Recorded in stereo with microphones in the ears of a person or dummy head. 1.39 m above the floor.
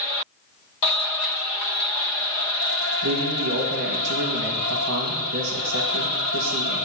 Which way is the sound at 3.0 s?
60° right (ahead or behind).